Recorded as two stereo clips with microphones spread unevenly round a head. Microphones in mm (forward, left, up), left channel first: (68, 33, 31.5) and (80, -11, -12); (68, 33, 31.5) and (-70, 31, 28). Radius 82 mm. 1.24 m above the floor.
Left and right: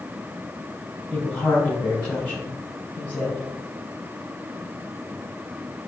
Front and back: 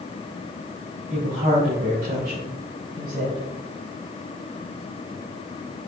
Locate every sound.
1.1 s a woman speaking: 135° right, 4 m; by 3.4 s 160° right, 6.5 m